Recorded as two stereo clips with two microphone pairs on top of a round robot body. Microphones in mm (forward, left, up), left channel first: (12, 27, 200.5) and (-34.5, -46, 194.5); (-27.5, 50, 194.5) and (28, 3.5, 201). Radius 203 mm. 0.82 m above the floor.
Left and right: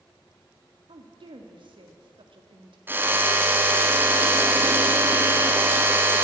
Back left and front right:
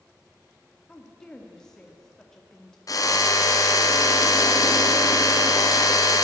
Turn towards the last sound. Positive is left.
turn(degrees=175)